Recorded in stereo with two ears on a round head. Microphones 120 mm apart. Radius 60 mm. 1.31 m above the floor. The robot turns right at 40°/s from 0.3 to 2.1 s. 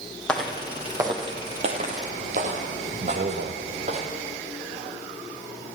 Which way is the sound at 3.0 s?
75° right (ahead or behind).